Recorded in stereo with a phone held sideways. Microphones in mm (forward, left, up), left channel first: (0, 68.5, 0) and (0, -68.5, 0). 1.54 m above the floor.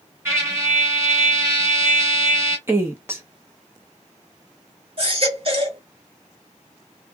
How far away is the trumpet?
About 1.6 m.